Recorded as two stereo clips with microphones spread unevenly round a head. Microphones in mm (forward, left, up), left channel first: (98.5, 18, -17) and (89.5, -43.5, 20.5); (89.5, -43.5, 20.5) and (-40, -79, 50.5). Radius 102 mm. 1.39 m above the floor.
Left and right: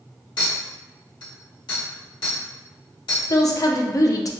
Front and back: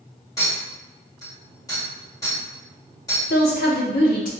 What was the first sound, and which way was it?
A clink, 90° left.